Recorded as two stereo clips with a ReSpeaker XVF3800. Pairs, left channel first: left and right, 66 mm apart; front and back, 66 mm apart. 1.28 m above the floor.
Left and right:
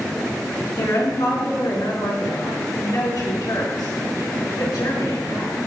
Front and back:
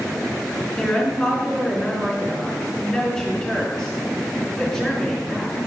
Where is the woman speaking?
85° left, 2.5 m.